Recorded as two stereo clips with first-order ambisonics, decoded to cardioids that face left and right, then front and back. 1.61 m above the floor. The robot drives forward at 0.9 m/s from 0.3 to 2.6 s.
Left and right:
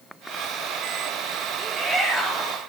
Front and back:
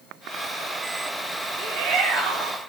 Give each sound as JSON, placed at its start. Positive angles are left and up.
{"t": 1.6, "sound": "a shout", "azimuth_deg": -160, "distance_m": 4.0}